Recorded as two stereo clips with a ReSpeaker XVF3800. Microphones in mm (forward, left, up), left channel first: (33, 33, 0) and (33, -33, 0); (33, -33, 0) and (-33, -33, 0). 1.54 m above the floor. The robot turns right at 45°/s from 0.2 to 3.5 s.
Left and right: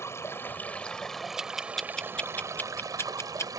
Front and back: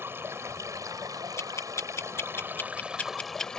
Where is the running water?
130° left; by 3.6 s 80° right.